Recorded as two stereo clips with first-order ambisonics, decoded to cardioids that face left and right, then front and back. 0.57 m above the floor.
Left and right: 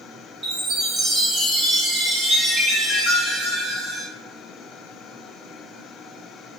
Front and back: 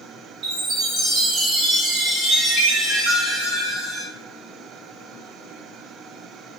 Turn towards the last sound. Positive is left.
turn(degrees=-150)